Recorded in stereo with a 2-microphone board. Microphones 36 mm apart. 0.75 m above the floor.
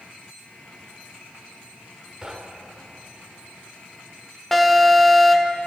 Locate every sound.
2.2 s knocking: 20° right (ahead or behind), 1.6 m
4.5 s an alarm: 5° left (ahead or behind), 1.2 m